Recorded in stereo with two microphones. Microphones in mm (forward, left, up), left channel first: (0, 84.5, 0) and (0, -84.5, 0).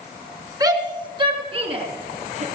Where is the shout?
20° right (ahead or behind), 2.5 m; by 2.5 s 45° right (ahead or behind), 2.5 m.